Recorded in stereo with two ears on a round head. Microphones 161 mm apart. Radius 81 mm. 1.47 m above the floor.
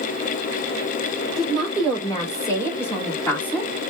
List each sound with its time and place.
1.4 s a woman speaking: 25° left (ahead or behind), 4.5 m; by 3.7 s 5° left (ahead or behind), 4 m